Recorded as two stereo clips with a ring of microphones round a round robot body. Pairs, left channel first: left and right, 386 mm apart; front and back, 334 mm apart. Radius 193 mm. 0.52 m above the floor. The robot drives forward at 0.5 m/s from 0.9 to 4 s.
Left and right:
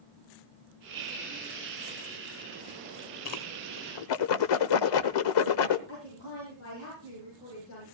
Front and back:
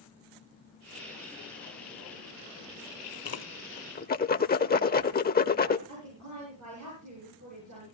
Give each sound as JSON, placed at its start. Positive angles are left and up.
{"t": 3.2, "sound": "a whoosh", "azimuth_deg": 50, "distance_m": 1.3}
{"t": 5.9, "sound": "a woman speaking", "azimuth_deg": 145, "distance_m": 9.0}